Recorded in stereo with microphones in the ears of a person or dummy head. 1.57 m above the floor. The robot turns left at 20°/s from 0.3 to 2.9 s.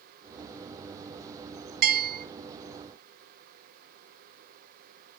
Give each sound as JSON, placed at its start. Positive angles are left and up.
{"t": 1.8, "sound": "a bell", "side_deg": -50, "distance_m": 0.8}